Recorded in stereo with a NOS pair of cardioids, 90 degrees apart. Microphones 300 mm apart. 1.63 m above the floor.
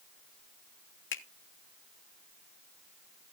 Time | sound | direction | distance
1.1 | a finger snap | 40° left | 1.7 m